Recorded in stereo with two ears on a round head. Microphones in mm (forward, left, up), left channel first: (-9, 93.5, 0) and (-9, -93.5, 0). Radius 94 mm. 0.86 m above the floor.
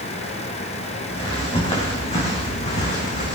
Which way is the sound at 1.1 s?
25° left (ahead or behind).